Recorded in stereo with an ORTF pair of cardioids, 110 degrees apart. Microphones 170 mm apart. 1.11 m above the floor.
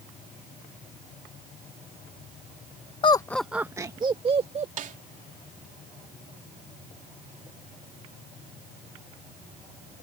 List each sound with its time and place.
3.0 s laughter: 30° left; by 4.7 s 35° right
4.8 s a snare drum: 50° right